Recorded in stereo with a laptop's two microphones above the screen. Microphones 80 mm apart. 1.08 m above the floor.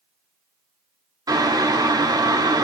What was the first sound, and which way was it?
Boiling, 50° right (ahead or behind).